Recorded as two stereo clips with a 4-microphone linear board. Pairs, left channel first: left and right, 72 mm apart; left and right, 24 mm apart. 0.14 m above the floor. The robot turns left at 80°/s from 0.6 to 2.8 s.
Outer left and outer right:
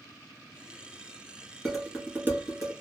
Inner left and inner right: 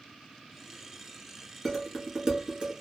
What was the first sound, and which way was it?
Dishes clattering, 10° left (ahead or behind).